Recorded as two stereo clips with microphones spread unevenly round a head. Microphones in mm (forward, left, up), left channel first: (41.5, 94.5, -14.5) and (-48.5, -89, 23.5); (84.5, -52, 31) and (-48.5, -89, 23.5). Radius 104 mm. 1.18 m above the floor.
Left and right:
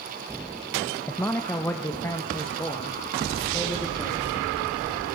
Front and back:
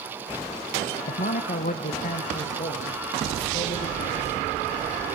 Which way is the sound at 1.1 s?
15° right.